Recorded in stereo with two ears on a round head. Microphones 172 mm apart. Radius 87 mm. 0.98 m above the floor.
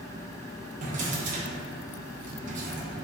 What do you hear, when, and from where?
0.8 s a drawer: 45° right (ahead or behind), 0.6 m